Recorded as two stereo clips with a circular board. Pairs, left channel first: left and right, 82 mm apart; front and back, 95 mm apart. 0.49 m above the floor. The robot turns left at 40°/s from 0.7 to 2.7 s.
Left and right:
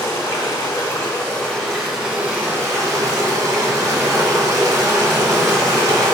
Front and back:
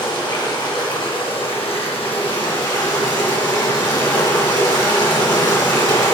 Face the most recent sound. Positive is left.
turn(degrees=-35)